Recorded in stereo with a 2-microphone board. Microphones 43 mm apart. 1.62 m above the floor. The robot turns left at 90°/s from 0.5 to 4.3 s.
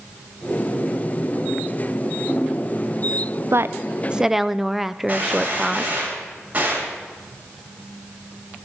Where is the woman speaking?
100° right, 0.6 m; by 5.9 s 175° right, 0.6 m.